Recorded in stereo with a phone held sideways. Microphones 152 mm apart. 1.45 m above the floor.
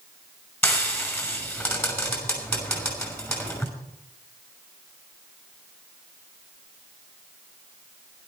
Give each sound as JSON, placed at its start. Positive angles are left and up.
{"t": 0.6, "sound": "frying", "side_deg": 15, "distance_m": 5.5}